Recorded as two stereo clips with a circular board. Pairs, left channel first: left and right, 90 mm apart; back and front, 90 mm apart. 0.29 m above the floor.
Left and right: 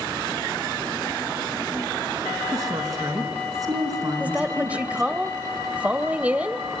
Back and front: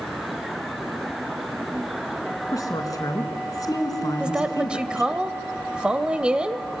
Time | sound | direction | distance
2.5 | a woman speaking | 135° right | 3.5 m
4.2 | a woman speaking | 55° right | 0.9 m